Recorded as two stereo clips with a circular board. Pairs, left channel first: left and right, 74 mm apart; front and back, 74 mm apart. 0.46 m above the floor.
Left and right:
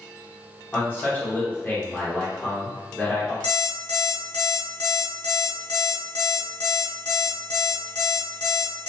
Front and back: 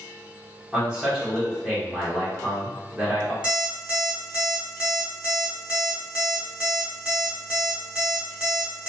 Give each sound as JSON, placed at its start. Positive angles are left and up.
{"t": 0.7, "sound": "a man speaking", "azimuth_deg": 115, "distance_m": 1.0}
{"t": 3.4, "sound": "an alarm clock", "azimuth_deg": 105, "distance_m": 1.0}